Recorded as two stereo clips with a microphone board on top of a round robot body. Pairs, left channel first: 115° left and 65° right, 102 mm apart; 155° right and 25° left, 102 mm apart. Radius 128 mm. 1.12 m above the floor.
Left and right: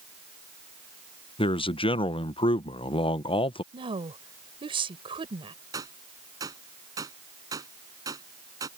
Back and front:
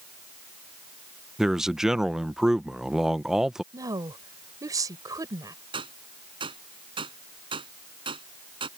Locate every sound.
1.4 s a man speaking: 105° left
3.7 s a woman speaking: 35° right
5.7 s a gunshot: 15° right